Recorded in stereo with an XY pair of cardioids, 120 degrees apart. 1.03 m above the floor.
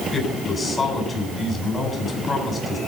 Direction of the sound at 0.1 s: 30° left.